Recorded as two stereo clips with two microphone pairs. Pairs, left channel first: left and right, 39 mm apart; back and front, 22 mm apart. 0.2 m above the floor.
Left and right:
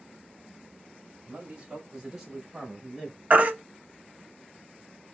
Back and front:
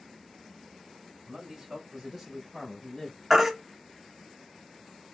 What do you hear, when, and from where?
1.3 s a man speaking: 40° right, 1.4 m; by 3.2 s 155° left, 1.4 m
3.3 s a baby crying: 70° right, 0.7 m